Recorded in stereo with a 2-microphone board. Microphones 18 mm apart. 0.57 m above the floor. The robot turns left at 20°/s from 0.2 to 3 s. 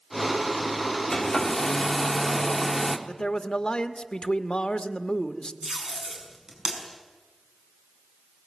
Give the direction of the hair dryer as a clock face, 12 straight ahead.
11 o'clock.